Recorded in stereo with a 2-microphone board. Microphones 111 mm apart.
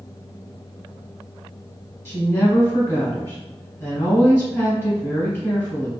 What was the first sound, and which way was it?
A woman speaking, 20° left (ahead or behind).